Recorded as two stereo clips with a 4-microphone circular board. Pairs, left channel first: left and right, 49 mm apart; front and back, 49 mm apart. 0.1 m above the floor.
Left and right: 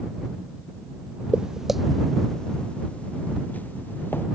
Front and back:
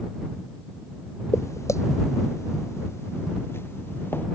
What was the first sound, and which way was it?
Footsteps, 20° right.